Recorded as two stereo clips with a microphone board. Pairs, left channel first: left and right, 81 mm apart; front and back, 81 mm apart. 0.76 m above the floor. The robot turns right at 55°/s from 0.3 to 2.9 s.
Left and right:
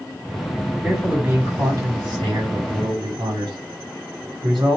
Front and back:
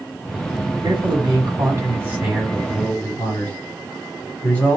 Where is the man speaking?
Straight behind, 2 m; by 4.8 s 70° right, 2 m.